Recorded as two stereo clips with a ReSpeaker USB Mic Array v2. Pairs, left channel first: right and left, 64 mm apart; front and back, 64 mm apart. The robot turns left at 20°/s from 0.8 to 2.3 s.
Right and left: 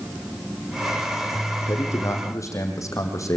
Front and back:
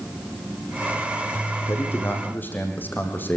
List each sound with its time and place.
1.6 s a man speaking: 45° right, 6 m; by 3.4 s 55° right, 6 m